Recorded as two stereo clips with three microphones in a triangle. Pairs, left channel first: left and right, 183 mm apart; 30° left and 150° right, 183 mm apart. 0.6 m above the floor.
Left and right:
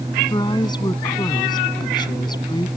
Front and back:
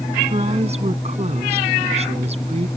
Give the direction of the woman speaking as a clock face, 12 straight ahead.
7 o'clock.